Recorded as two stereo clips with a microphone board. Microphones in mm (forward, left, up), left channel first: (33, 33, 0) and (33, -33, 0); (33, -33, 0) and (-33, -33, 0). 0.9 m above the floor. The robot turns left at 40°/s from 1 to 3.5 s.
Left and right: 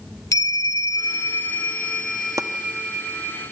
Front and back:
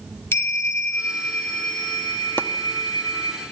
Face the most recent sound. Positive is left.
turn(degrees=-100)